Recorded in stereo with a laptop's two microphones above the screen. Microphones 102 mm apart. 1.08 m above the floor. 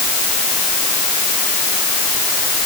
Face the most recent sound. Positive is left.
No sound to turn to.